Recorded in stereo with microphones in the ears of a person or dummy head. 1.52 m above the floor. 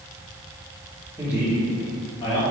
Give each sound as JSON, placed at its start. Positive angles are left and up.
{"t": 1.2, "sound": "a man speaking", "side_deg": -10, "distance_m": 1.7}